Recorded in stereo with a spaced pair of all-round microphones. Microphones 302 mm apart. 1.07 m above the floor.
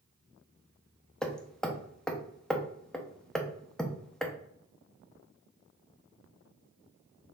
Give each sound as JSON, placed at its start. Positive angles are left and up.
{"t": 1.2, "sound": "hammering", "side_deg": 0, "distance_m": 0.6}